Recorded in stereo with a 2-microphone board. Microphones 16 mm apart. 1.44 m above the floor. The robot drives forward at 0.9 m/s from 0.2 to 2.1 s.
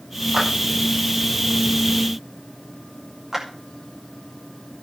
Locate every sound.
0.3 s a clap: 45° right (ahead or behind), 6 m; by 0.5 s 50° right (ahead or behind), 6 m
3.3 s a clap: 25° right (ahead or behind), 5 m